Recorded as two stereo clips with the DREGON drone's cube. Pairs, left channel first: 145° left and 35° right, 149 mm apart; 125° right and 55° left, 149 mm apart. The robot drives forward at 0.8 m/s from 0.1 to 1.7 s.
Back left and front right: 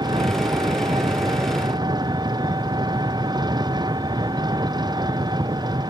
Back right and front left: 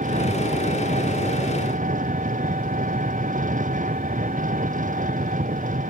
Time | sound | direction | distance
0.0 | an engine running | 25° left | ?